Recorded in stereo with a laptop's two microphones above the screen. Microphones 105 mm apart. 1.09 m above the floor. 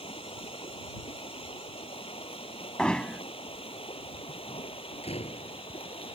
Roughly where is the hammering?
Centre.